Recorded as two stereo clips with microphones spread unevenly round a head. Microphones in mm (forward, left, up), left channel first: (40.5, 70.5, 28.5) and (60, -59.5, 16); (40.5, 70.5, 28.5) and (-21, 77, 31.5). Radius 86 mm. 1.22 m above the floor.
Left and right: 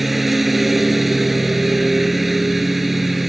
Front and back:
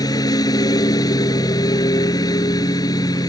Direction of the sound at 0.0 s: 10° left.